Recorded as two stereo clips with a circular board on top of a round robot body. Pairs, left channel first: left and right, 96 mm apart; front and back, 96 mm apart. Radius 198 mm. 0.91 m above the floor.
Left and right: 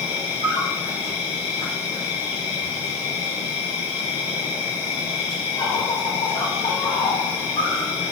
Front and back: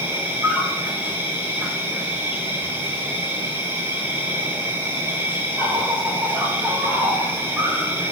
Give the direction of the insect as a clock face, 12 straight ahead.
8 o'clock.